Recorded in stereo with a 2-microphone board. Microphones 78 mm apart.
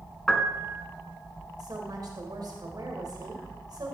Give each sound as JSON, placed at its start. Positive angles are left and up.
{"t": 0.3, "sound": "a piano", "side_deg": 5, "distance_m": 1.3}
{"t": 1.6, "sound": "a woman speaking", "side_deg": -60, "distance_m": 2.0}